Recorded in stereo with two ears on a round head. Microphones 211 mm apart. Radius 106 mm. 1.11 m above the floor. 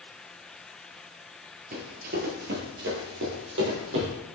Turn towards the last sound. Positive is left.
turn(degrees=-55)  # may be behind; listen again after turning